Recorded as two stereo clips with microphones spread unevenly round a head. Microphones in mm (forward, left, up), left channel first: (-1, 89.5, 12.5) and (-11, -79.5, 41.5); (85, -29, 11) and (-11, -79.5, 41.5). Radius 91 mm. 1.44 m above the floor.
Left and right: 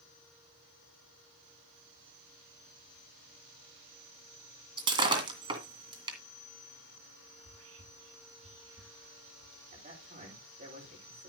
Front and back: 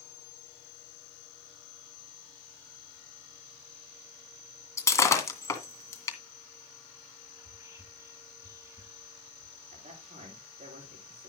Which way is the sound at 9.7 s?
140° right.